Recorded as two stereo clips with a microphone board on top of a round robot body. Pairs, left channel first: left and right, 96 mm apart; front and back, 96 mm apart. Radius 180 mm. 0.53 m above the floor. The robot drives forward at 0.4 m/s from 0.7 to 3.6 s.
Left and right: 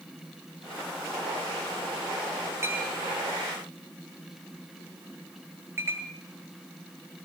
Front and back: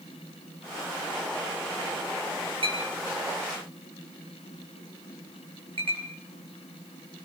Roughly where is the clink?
Behind right.